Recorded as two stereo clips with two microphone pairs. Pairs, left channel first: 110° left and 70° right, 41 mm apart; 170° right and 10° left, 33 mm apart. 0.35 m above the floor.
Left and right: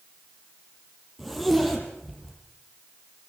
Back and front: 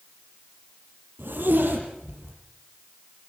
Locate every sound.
1.2 s a zipper: 20° left, 6.5 m